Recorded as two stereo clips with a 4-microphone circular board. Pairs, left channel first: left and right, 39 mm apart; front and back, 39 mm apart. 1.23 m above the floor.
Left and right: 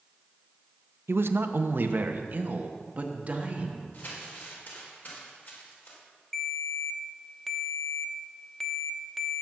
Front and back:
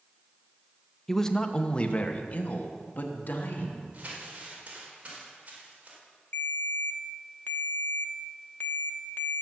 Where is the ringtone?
5° left, 1.0 m.